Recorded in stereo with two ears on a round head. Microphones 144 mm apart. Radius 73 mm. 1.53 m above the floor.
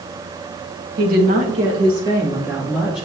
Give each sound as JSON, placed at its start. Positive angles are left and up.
{"t": 1.0, "sound": "a woman speaking", "side_deg": -60, "distance_m": 1.6}